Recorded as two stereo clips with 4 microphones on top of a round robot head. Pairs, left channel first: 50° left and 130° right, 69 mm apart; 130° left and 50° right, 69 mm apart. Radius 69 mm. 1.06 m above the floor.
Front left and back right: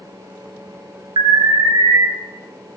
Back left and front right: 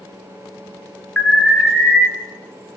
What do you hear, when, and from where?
1.2 s an alarm: 145° right, 1.4 m